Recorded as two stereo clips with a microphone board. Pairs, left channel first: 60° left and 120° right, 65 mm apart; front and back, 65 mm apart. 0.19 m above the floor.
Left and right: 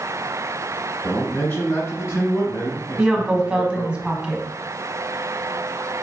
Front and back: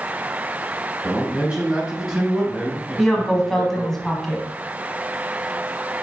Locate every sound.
1.0 s a man speaking: 115° left, 2.0 m; by 4.0 s 85° left, 3.5 m
3.0 s a woman speaking: 75° right, 1.0 m